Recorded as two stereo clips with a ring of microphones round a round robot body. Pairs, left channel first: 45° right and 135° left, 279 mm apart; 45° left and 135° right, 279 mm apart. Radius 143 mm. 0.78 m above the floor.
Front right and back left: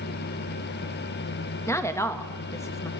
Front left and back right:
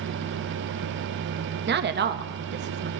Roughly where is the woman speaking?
Behind right.